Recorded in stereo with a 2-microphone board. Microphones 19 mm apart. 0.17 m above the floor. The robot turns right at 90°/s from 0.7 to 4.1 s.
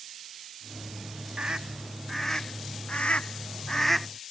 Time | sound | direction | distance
1.4 | a scream | 55° right (ahead or behind) | ?